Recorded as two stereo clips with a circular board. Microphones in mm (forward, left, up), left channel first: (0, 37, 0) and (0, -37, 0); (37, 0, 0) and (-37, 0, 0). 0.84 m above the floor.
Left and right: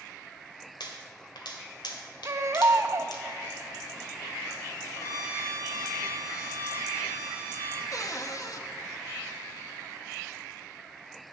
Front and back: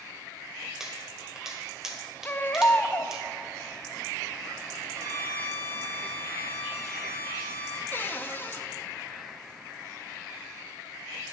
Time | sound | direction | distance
0.8 | a pop | 95° left | 2 m
2.2 | a baby crying | 55° right | 0.6 m
5.0 | a violin | 135° left | 2.5 m
7.9 | a cupboard door | 60° left | 1.0 m